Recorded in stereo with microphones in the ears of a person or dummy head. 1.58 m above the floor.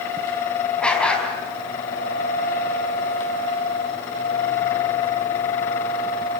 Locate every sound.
0.8 s a dog barking: centre (ahead or behind), 4.5 m